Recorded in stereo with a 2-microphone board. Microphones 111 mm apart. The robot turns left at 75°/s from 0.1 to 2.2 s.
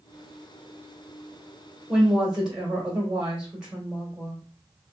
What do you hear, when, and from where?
1.9 s a woman speaking: centre (ahead or behind), 1.2 m; by 4.4 s 10° right (ahead or behind), 1.2 m